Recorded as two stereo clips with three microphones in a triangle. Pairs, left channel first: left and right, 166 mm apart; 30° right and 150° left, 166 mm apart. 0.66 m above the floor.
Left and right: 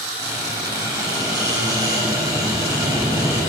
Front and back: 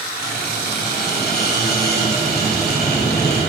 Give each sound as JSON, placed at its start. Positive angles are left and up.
{"t": 0.2, "sound": "a squeak", "azimuth_deg": -20, "distance_m": 3.5}